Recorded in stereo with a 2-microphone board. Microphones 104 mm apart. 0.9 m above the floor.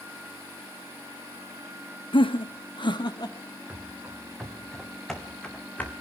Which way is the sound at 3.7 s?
10° right (ahead or behind).